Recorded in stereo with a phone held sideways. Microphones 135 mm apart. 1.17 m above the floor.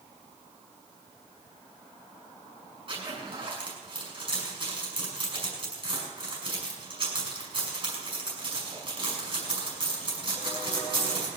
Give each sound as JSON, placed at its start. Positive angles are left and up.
{"t": 2.9, "sound": "a zipper", "side_deg": -45, "distance_m": 6.5}